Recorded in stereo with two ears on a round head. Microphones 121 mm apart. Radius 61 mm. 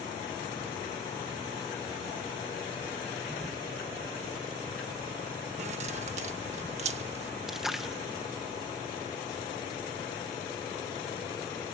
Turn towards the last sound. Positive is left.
turn(degrees=-5)  # may be behind; listen again after turning